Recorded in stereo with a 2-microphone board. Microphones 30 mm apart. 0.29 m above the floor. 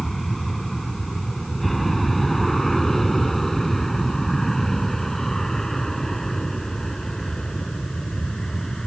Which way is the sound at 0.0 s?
Centre (ahead or behind).